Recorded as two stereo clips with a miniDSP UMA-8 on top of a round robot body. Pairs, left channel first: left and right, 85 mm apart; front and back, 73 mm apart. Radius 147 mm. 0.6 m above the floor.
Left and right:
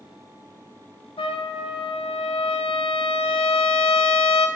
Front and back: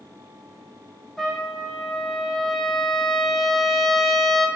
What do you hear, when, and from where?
1.2 s a trumpet: 85° left, 0.7 m